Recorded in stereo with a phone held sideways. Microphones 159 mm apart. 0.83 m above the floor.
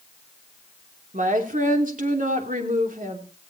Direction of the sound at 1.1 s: 60° right (ahead or behind).